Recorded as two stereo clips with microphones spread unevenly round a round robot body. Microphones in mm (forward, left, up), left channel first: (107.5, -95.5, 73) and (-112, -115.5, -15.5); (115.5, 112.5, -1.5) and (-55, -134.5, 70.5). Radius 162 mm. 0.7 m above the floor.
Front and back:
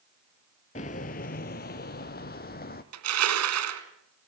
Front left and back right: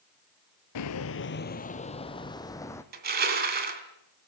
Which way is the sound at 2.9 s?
175° left.